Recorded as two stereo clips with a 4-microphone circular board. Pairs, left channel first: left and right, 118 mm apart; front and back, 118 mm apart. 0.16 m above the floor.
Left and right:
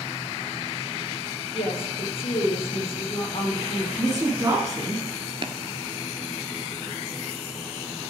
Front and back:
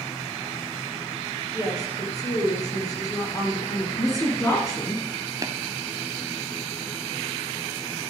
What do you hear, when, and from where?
1.5 s a woman speaking: 55° left, 4 m
4.0 s a woman speaking: 45° right, 2 m
5.4 s tapping: 125° right, 0.8 m